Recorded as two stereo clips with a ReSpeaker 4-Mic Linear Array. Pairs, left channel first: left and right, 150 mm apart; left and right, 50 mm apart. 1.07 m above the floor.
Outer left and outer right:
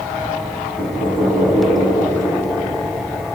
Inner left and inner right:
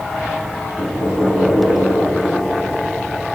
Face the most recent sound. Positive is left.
turn(degrees=-30)  # may be behind; listen again after turning